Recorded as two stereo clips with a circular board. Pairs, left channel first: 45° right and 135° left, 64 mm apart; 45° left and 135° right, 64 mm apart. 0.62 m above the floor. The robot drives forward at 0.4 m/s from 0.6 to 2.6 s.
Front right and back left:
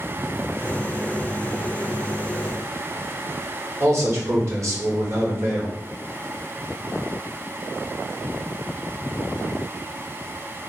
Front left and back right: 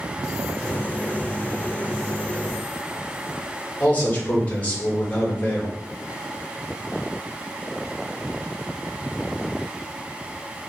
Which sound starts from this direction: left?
A man speaking, at 3.8 s.